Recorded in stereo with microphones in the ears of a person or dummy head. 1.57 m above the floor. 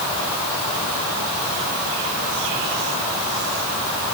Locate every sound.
Only background noise.